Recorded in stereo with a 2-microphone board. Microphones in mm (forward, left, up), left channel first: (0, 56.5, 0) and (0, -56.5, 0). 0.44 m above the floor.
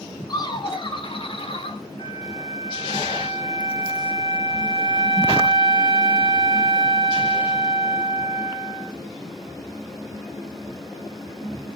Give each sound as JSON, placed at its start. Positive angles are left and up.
{"t": 0.3, "sound": "laughter", "side_deg": 40, "distance_m": 2.5}
{"t": 2.0, "sound": "a flute", "side_deg": 50, "distance_m": 3.5}